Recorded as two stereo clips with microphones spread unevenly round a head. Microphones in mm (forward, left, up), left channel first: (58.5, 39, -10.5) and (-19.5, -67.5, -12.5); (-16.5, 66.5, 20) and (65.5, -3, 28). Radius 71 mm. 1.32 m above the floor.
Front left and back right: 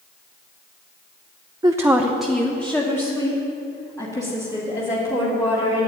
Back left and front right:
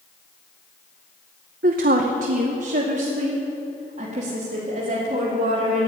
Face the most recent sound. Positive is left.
turn(degrees=-5)